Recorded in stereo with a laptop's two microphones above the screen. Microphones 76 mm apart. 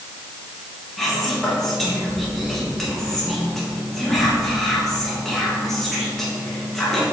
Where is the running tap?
No running tap in this recording.